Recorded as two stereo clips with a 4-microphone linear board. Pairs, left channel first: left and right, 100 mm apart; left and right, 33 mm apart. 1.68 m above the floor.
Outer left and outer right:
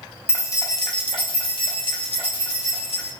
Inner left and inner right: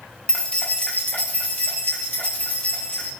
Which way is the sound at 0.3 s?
20° left (ahead or behind).